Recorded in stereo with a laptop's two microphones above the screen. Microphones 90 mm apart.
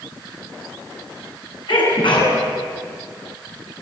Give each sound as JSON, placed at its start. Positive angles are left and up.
{"t": 1.7, "sound": "a sneeze", "side_deg": 70, "distance_m": 9.5}